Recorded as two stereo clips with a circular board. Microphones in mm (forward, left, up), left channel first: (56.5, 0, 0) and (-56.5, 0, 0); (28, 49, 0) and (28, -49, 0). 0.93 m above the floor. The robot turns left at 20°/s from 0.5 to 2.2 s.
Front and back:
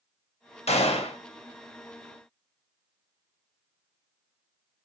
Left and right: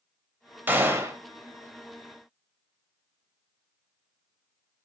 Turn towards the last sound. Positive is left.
turn(degrees=-50)